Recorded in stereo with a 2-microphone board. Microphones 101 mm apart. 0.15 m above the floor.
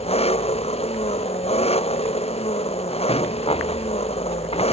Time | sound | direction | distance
0.0 | an engine running | 85° left | ?
3.1 | a rattle | 75° left (ahead or behind) | ?